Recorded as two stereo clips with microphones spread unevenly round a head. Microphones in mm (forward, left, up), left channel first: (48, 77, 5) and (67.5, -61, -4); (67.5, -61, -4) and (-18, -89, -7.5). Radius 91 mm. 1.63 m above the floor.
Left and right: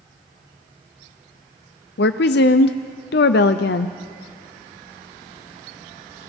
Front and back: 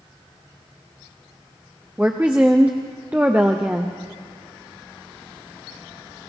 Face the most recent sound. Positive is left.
turn(degrees=115)